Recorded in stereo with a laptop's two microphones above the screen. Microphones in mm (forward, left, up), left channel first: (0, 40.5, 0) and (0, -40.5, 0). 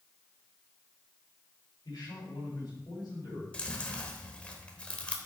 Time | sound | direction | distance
1.9 | a man speaking | 60° left (ahead or behind) | 3.5 m
3.5 | chewing | 15° left (ahead or behind) | 0.9 m